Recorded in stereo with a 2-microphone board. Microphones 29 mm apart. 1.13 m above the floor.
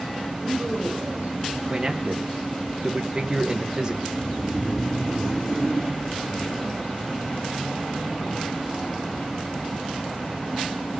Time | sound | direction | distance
0.4 | a woman speaking | 55° right (ahead or behind) | 4 m
1.7 | a man speaking | 25° right (ahead or behind) | 1.3 m
4.1 | snoring | 30° left (ahead or behind) | 6 m